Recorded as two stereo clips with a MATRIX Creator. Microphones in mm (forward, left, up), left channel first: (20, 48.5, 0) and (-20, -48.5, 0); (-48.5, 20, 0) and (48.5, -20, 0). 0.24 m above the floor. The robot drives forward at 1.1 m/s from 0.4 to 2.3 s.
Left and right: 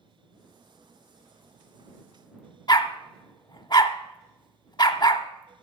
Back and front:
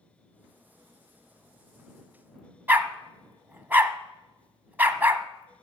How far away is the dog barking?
About 0.7 m.